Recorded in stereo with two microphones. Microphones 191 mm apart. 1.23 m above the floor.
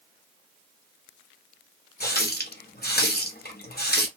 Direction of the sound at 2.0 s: 55° left (ahead or behind).